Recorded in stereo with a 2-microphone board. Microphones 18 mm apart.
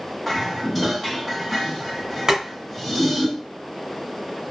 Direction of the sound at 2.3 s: 35° right (ahead or behind).